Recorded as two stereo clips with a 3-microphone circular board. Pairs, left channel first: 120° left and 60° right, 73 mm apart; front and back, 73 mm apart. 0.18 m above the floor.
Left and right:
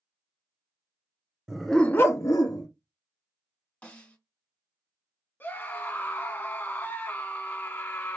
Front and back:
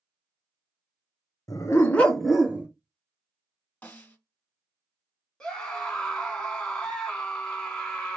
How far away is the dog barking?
About 0.9 m.